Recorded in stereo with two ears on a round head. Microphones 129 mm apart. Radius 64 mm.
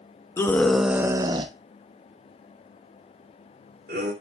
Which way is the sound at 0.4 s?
20° left (ahead or behind).